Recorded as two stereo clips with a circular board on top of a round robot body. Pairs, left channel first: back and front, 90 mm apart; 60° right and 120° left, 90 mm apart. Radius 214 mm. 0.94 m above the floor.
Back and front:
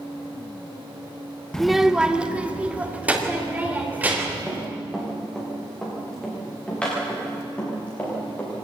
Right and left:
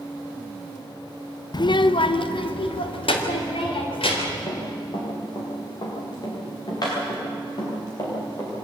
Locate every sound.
1.5 s a child speaking: 100° right, 0.6 m; by 4.5 s 70° right, 4.5 m
4.5 s running footsteps: 90° right, 7 m; by 8.5 s 110° right, 9 m